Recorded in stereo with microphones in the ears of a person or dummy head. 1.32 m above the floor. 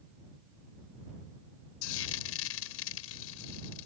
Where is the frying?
75° left (ahead or behind).